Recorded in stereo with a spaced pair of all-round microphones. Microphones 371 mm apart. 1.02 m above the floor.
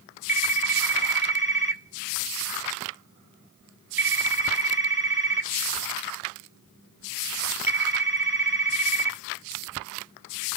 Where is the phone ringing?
70° right (ahead or behind), 1.6 m.